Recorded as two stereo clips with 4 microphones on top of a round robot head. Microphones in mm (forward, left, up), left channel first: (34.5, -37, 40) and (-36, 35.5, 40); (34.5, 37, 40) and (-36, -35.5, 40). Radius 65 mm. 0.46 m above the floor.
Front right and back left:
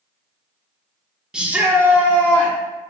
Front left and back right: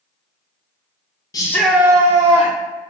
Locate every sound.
1.3 s a shout: 55° left, 0.8 m; by 2.5 s 160° right, 1.5 m